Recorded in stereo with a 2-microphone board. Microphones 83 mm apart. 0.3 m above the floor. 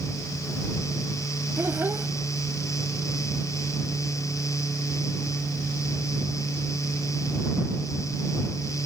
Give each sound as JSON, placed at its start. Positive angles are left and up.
{"t": 1.6, "sound": "a child speaking", "side_deg": -25}